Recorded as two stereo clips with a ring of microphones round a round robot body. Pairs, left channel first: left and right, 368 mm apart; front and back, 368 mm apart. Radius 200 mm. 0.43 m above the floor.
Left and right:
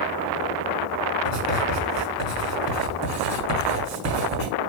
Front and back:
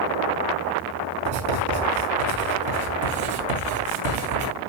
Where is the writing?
135° right, 5.5 m.